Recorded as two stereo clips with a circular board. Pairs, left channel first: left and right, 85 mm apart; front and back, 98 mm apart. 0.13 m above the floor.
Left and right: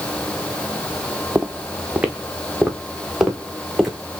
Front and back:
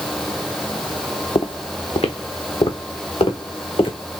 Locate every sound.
1.4 s footsteps: 25° right, 0.8 m; by 4.0 s 5° right, 2.5 m